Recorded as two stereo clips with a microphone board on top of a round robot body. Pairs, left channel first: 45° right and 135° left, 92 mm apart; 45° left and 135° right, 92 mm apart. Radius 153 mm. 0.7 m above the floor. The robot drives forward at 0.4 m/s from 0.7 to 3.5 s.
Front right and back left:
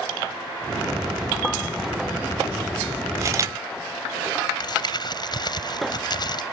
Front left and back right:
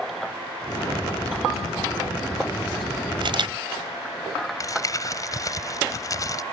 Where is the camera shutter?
165° right; by 3.5 s 170° right.